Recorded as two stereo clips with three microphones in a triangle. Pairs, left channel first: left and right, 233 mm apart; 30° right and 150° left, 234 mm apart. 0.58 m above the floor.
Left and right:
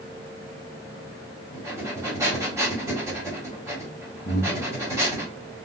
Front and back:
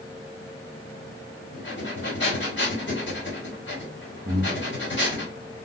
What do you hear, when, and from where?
1.5 s breathing: 15° right, 1.8 m
4.2 s breathing: 115° left, 0.7 m